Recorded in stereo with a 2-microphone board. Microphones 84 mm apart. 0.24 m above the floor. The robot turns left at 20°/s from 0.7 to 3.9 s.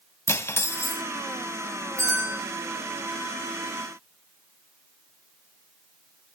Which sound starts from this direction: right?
A bell, at 2.0 s.